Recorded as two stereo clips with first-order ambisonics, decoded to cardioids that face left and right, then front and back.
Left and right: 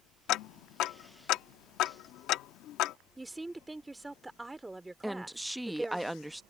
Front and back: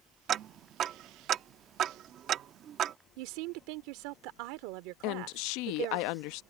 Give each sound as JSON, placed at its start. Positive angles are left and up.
{"t": 0.3, "sound": "ticking", "azimuth_deg": 125}
{"t": 3.2, "sound": "a woman speaking", "azimuth_deg": -175}
{"t": 5.0, "sound": "a woman speaking", "azimuth_deg": 0}